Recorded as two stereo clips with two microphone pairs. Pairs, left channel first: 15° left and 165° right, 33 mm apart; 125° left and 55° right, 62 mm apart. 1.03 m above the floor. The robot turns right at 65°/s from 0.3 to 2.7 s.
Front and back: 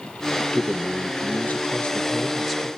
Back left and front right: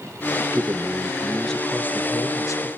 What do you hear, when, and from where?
0.4 s a man speaking: 25° right, 0.8 m; by 2.7 s 125° left, 0.8 m